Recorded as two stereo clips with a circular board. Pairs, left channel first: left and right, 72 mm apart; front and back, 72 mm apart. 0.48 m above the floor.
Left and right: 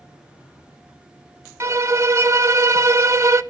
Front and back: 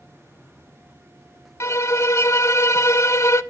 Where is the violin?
45° right, 0.6 m.